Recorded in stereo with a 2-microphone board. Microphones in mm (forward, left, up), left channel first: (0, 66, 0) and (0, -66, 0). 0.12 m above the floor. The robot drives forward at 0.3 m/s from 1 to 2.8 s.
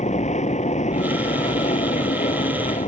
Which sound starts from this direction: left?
An aircraft, at 0.0 s.